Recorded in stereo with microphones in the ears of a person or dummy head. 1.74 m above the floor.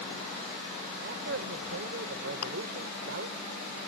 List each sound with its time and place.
1.0 s a man speaking: 55° right (ahead or behind)
2.4 s chewing: 50° left (ahead or behind)